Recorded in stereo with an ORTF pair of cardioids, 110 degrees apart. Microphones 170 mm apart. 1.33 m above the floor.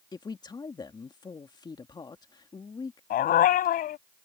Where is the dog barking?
65° left.